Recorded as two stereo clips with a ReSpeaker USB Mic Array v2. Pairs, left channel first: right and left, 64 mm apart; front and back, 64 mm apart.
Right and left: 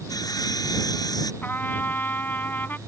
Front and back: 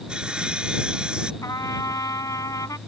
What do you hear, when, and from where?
0.1 s sawing: 105° right
1.4 s a trumpet: 30° right